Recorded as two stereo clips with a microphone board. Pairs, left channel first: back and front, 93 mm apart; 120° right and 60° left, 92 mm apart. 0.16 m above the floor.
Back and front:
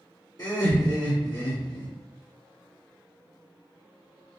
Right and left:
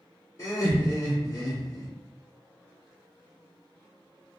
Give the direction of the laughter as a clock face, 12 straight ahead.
5 o'clock.